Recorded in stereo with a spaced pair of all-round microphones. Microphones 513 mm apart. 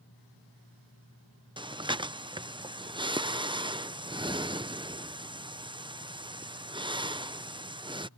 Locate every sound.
1.6 s breathing: 10° right (ahead or behind)